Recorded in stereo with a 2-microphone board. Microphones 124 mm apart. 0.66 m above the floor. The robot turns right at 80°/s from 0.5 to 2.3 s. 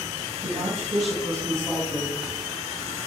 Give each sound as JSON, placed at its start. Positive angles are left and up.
{"t": 0.4, "sound": "a woman speaking", "azimuth_deg": -115, "distance_m": 4.5}